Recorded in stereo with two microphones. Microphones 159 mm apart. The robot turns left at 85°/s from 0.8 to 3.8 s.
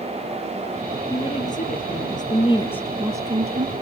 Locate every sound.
1.1 s a woman speaking: 155° left, 3 m; by 3.7 s 70° right, 3 m